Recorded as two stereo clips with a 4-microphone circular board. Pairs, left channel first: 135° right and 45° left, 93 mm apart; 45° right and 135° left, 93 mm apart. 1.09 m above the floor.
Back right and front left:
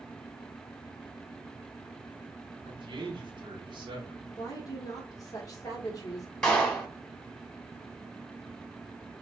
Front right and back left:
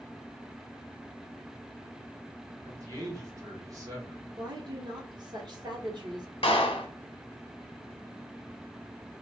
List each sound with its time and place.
2.6 s a man speaking: 85° left, 1.2 m
4.4 s a woman speaking: 175° left, 1.0 m
6.4 s a clap: 55° right, 0.8 m